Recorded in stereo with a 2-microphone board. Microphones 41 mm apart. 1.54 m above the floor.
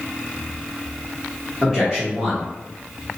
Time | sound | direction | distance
1.6 | a man speaking | 15° right (ahead or behind) | 0.9 m